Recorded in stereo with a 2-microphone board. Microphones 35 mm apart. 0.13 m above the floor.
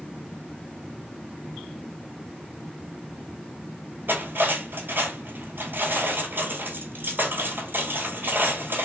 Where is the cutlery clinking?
65° right (ahead or behind), 1.5 m.